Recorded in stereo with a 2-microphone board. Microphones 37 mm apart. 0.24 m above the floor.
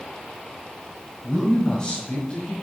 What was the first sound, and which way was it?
A man speaking, 5° left (ahead or behind).